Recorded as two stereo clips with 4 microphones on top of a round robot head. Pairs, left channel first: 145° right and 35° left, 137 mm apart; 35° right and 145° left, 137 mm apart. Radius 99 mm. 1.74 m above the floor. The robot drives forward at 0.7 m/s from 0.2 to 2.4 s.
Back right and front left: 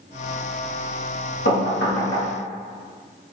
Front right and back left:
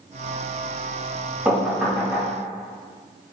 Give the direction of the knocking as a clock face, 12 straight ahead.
5 o'clock.